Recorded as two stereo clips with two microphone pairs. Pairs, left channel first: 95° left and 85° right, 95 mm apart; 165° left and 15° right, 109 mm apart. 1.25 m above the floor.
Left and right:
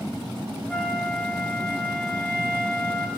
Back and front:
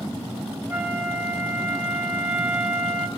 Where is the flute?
30° left, 0.9 m.